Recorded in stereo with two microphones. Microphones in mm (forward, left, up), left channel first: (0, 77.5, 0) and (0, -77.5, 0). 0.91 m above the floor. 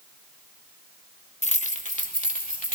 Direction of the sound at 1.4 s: 45° left (ahead or behind).